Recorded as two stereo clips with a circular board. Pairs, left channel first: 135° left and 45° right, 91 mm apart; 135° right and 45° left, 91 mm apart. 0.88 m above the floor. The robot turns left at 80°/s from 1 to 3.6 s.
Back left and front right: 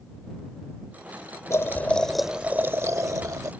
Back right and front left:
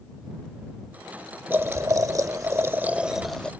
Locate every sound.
1.5 s boiling: 95° left; by 3.5 s 65° right